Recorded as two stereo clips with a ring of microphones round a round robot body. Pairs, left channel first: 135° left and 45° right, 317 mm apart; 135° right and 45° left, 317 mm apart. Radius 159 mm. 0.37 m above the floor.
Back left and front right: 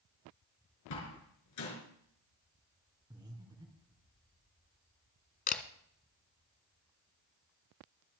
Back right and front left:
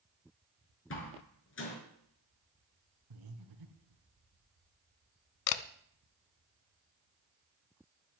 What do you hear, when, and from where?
0.9 s a door slam: 175° left, 4.5 m
3.1 s breathing: 30° left, 3 m
5.5 s a camera shutter: 160° right, 0.9 m